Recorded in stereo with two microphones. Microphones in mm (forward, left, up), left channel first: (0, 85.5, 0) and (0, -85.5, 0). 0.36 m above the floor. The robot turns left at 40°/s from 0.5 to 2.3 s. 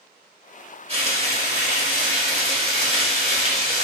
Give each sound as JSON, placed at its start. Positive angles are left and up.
{"t": 0.9, "sound": "frying", "azimuth_deg": -60, "distance_m": 1.3}